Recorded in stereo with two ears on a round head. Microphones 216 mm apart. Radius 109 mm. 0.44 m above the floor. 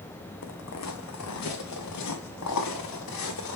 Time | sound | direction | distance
0.4 | footsteps | 75° left (ahead or behind) | 1.6 m